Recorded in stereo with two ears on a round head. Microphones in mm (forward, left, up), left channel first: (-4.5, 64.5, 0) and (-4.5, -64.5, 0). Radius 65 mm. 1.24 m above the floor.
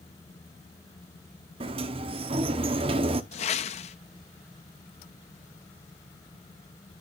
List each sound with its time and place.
1.6 s a sliding door: 35° right (ahead or behind), 0.8 m
3.3 s a whoosh: 45° left (ahead or behind), 0.6 m